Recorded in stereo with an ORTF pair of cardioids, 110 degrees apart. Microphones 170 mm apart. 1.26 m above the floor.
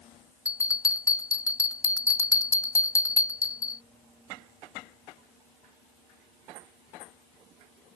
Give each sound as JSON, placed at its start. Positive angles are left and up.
{"t": 0.5, "sound": "a bell", "azimuth_deg": 20}